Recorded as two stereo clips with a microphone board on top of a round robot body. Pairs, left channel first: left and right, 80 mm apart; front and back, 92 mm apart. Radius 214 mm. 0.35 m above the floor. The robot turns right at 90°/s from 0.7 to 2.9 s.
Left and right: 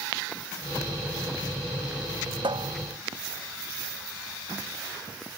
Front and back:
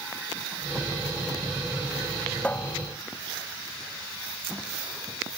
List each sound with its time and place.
2.4 s a cupboard door: 80° right; by 5.4 s 40° right